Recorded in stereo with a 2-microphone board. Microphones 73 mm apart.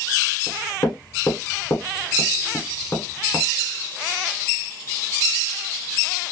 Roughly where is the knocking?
Left.